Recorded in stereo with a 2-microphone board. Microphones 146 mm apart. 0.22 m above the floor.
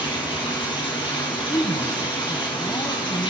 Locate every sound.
0.0 s running water: 35° left (ahead or behind), 3 m
1.5 s a woman speaking: 30° left (ahead or behind), 1.1 m